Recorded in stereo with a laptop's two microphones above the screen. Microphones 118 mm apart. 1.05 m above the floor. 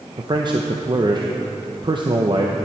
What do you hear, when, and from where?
0.2 s a man speaking: 40° right (ahead or behind), 0.7 m